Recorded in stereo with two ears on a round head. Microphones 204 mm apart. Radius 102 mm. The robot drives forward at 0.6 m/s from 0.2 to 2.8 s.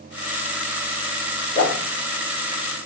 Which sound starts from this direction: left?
A whoosh, at 1.6 s.